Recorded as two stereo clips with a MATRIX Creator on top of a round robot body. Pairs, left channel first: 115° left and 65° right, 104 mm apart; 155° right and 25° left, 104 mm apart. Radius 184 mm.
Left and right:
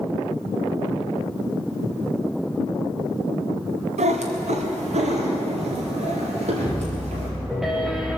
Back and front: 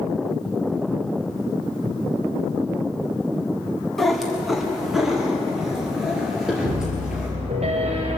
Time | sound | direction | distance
4.0 | a cat meowing | 70° right | 1.4 m
6.6 | a piano | 20° left | 1.6 m